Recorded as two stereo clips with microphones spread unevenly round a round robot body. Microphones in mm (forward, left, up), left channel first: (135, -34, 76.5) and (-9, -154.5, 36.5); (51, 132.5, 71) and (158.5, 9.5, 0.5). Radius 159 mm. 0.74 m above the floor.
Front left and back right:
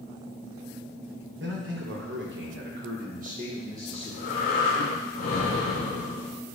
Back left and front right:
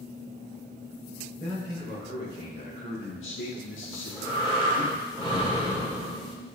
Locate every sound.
1.4 s a man speaking: 135° right, 2.5 m; by 4.9 s 115° left, 2 m
3.9 s breathing: 60° left, 2 m